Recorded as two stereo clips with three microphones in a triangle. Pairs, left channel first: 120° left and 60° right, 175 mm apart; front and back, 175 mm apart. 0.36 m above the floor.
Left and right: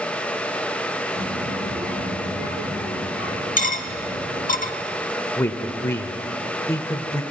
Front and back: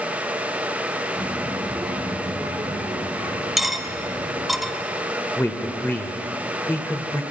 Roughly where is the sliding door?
No sliding door in this recording.